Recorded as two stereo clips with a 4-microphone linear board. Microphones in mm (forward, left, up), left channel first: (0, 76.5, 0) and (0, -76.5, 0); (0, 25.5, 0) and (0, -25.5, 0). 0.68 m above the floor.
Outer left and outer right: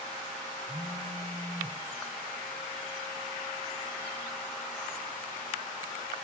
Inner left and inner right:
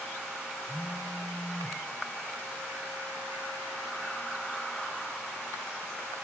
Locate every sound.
0.7 s a phone buzzing: 30° right (ahead or behind), 2.5 m